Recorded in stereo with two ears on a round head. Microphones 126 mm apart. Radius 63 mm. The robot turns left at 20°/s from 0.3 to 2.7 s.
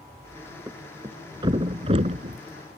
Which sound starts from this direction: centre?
A thud, at 0.7 s.